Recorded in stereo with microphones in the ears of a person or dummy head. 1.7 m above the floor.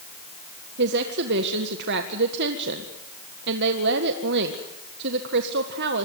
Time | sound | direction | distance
0.8 | a woman speaking | 65° right (ahead or behind) | 1.7 m